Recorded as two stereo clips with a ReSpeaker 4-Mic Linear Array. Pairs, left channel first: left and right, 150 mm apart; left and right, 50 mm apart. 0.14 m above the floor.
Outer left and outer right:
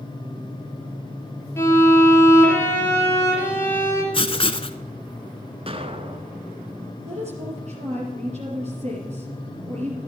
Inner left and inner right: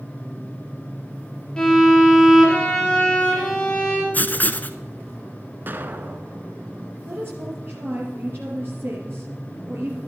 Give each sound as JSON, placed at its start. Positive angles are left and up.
{"t": 1.6, "sound": "a violin", "side_deg": 15, "distance_m": 3.5}
{"t": 4.1, "sound": "writing", "side_deg": 40, "distance_m": 0.7}
{"t": 5.7, "sound": "an explosion", "side_deg": -40, "distance_m": 1.0}
{"t": 7.0, "sound": "a woman speaking", "side_deg": -50, "distance_m": 3.5}